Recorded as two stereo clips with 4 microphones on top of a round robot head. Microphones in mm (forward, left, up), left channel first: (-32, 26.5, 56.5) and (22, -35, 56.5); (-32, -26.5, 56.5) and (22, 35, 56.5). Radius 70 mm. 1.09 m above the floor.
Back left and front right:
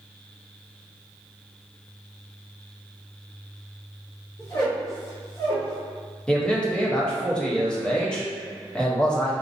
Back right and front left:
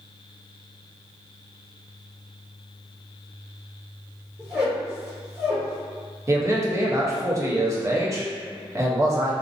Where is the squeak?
95° left, 0.8 m.